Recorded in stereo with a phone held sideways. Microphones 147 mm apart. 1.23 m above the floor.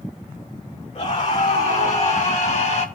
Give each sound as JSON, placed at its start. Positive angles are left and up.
{"t": 0.9, "sound": "a scream", "side_deg": 50, "distance_m": 3.0}